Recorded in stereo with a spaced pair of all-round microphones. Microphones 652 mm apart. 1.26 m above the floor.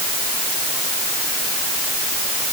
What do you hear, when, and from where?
Only background noise.